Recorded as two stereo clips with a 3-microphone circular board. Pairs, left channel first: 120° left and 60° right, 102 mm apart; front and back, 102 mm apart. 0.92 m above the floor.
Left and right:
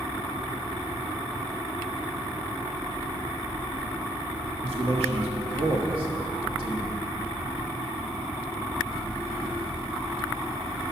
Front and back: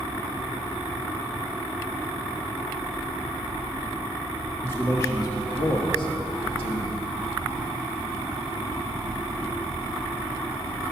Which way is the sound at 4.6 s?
70° right.